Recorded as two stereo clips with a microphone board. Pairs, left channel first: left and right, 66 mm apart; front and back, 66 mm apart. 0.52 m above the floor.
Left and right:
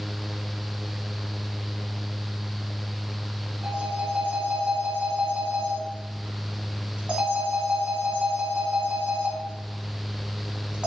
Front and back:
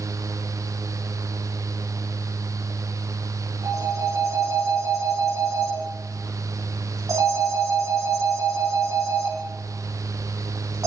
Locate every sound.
3.6 s a phone ringing: 160° right, 3 m